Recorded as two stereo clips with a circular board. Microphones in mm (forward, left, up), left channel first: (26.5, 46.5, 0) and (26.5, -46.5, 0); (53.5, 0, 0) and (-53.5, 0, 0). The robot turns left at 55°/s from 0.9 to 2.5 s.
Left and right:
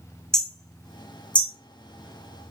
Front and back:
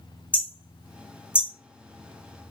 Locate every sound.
0.3 s hammering: 155° left, 1.2 m; by 1.5 s 125° left, 1.2 m